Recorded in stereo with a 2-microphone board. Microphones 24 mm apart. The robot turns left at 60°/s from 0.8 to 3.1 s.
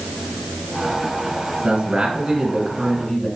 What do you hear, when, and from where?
1.6 s a man speaking: 100° right, 1.7 m; by 3.3 s 175° left, 1.7 m